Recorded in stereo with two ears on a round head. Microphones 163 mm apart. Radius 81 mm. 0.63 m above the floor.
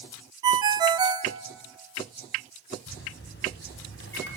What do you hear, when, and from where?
0.4 s a ringtone: 25° right (ahead or behind), 0.7 m
2.9 s a microwave: 70° left (ahead or behind), 3 m